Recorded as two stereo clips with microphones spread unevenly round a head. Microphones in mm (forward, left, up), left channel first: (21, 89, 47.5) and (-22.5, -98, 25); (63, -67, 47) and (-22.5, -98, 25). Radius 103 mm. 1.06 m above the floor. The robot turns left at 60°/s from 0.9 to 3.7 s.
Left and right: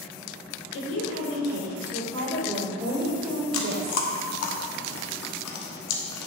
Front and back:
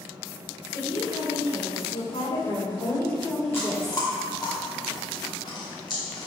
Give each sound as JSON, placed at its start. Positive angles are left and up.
{"t": 0.7, "sound": "a woman speaking", "azimuth_deg": 75, "distance_m": 4.0}
{"t": 3.5, "sound": "chewing", "azimuth_deg": 95, "distance_m": 1.3}